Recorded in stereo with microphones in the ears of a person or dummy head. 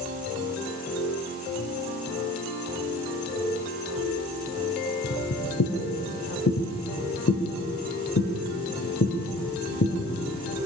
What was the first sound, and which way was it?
Footsteps, 65° left (ahead or behind).